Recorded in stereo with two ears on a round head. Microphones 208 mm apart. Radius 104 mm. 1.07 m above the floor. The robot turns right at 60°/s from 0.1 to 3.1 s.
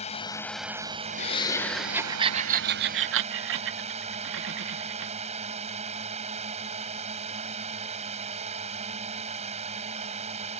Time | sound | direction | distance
0.0 | a drone | 150° left | ?
1.2 | laughter | 30° left (ahead or behind) | ?